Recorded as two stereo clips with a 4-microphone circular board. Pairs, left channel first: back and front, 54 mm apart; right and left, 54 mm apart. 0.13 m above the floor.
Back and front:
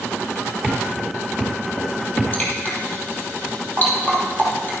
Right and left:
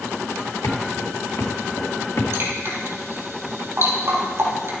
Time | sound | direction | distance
0.6 | footsteps | 95° right | 2.5 m
2.3 | dripping | 125° left | 3 m